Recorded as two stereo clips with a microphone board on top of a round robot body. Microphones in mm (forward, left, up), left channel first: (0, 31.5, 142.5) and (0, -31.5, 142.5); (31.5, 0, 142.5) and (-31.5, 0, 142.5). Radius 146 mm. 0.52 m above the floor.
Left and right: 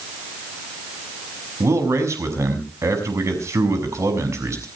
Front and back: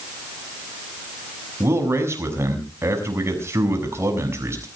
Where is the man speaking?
135° right, 6.5 m.